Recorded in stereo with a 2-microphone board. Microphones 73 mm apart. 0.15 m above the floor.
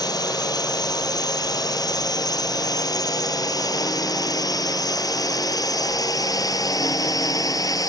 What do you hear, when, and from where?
0.0 s a drone: 60° left (ahead or behind); by 7.9 s 55° left (ahead or behind)